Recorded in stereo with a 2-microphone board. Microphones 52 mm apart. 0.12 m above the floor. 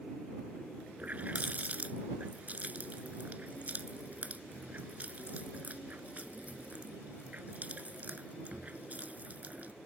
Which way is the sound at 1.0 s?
35° right (ahead or behind).